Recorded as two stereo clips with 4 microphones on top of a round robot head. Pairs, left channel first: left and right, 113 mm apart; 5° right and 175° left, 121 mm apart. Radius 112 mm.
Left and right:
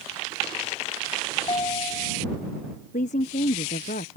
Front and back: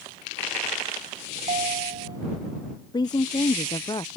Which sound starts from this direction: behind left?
A ringtone, at 1.4 s.